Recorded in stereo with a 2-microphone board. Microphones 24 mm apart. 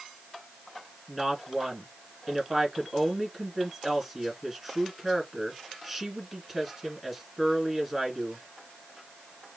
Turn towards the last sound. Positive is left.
turn(degrees=-10)  # may be behind; listen again after turning